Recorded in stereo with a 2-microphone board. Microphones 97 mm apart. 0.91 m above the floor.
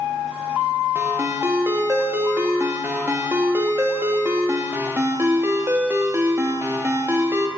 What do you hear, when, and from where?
0.9 s a ringtone: 25° right (ahead or behind), 0.7 m